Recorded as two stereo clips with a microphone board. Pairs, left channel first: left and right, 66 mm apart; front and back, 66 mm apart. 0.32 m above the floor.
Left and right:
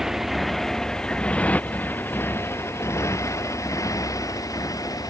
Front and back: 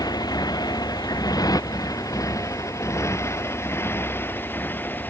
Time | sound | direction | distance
0.0 | a motorcycle | 5° right | ?